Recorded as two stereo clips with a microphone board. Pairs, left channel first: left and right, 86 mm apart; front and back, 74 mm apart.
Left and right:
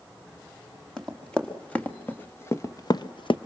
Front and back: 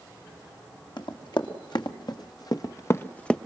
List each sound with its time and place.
1.0 s running footsteps: 10° left, 3 m; by 3.4 s 80° left, 0.9 m